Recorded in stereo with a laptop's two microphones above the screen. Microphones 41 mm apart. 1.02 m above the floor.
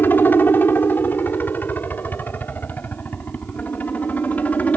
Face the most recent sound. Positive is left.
turn(degrees=40)  # may be behind; listen again after turning